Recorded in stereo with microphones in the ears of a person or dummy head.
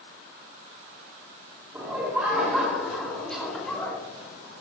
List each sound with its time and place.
1.7 s laughter: 15° right (ahead or behind), 3 m; by 4.0 s 10° left (ahead or behind), 3 m